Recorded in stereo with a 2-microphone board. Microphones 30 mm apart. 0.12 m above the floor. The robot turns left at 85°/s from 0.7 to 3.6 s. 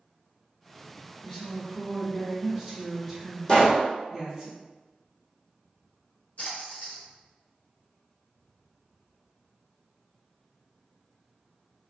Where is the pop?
30° left (ahead or behind), 1.0 m; by 3.9 s 40° left (ahead or behind), 1.0 m.